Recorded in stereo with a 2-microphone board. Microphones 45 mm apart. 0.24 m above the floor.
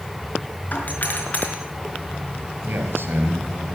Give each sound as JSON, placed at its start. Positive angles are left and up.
{"t": 0.7, "sound": "a doorbell", "side_deg": 40, "distance_m": 4.5}
{"t": 2.6, "sound": "a man speaking", "side_deg": -55, "distance_m": 5.0}